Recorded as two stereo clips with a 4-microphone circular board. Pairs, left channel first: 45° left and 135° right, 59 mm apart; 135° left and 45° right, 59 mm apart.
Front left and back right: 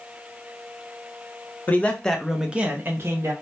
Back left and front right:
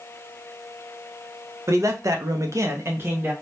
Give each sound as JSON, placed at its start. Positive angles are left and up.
{"t": 1.7, "sound": "a man speaking", "azimuth_deg": -10, "distance_m": 0.7}